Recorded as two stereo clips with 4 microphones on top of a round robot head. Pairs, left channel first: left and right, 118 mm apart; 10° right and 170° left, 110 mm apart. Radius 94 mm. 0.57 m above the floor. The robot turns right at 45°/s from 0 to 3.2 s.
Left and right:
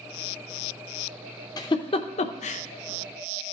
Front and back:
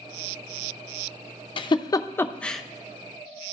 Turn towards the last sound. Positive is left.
turn(degrees=105)